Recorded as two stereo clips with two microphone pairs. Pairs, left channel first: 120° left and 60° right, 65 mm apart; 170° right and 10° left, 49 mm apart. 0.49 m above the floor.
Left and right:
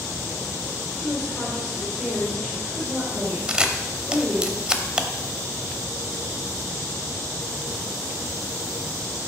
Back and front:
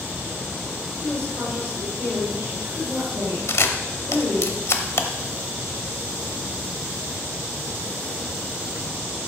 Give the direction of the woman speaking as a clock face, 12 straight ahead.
12 o'clock.